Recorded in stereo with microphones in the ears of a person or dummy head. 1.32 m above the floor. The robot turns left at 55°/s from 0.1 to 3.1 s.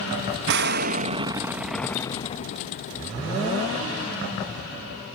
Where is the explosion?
110° right; by 3.0 s 110° left.